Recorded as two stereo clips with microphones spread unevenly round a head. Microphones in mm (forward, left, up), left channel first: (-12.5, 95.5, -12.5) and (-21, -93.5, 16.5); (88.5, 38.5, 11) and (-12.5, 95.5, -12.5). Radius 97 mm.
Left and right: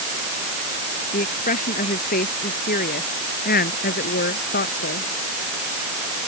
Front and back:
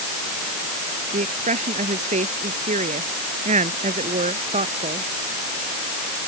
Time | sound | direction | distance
1.1 | a woman speaking | 135° left | ?